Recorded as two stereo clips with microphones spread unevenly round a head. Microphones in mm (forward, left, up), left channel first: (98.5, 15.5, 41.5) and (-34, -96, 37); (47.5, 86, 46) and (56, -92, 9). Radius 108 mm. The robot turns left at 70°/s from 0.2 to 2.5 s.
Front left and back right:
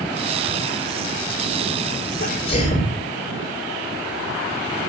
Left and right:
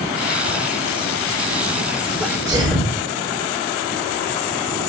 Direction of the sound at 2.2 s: 10° left.